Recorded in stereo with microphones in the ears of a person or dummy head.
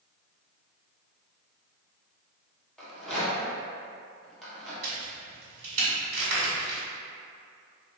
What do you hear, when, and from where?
2.8 s a rattle: centre (ahead or behind), 0.8 m
4.8 s a crack: 40° right (ahead or behind), 1.8 m